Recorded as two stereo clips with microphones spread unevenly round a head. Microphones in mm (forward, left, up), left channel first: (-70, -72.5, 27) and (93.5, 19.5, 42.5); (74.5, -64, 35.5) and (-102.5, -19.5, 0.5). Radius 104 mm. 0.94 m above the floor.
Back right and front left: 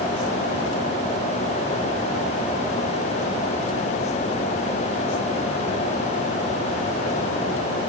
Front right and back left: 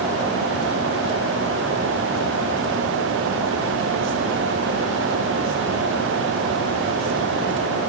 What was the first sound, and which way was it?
Only background noise.